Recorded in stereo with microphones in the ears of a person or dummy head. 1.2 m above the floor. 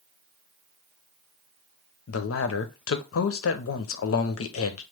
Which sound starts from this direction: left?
A man speaking, at 2.1 s.